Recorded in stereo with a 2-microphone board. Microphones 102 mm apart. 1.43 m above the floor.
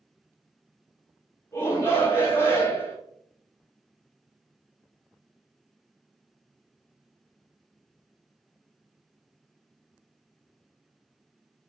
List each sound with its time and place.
1.5 s a shout: 30° left (ahead or behind), 2.5 m